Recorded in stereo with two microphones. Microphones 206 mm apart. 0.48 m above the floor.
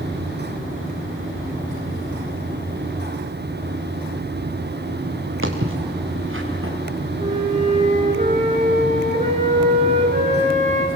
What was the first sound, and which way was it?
Footsteps, 85° right.